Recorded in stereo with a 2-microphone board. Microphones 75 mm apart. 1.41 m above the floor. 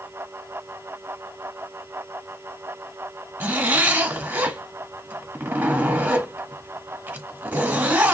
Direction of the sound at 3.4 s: 25° right (ahead or behind).